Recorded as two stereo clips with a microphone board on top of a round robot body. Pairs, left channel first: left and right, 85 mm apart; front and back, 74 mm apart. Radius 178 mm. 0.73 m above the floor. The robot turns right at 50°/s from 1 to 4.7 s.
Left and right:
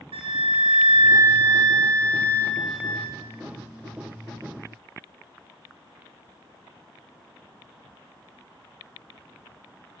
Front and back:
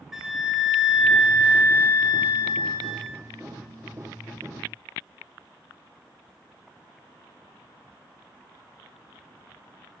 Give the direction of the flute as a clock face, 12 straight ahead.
3 o'clock.